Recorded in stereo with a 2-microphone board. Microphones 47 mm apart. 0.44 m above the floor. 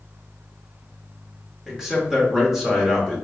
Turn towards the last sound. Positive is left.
turn(degrees=-10)  # may be behind; listen again after turning